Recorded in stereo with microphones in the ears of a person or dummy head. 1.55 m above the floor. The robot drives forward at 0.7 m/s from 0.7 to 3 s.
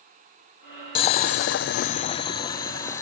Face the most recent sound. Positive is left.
turn(degrees=15)  # may be behind; listen again after turning